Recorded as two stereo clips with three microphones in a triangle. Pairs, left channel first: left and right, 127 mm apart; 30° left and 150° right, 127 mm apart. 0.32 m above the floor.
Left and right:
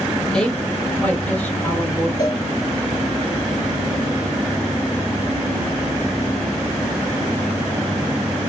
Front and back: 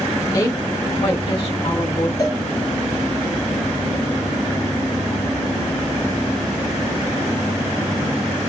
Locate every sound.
0.3 s a woman speaking: 15° left, 1.3 m; by 2.1 s 20° left, 2 m
2.2 s a cowbell: 65° left, 1.8 m